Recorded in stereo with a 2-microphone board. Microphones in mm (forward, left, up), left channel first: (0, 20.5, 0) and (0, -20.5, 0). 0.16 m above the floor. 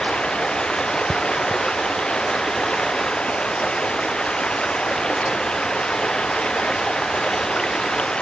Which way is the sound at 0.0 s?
25° left (ahead or behind).